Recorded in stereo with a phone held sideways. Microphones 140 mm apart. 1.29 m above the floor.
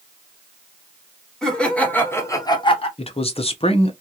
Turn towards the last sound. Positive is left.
turn(degrees=45)  # may be behind; listen again after turning